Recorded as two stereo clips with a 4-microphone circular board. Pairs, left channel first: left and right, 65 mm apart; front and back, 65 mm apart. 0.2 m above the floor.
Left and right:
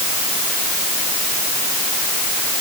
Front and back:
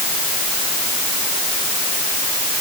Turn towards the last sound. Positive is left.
No sound to turn to.